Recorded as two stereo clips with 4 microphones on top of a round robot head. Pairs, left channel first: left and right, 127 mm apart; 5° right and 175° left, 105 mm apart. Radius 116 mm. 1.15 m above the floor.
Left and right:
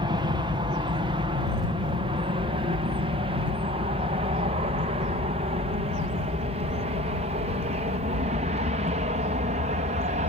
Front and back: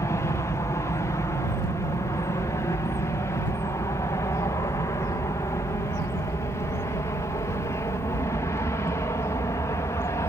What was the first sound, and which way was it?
An aircraft, 55° right.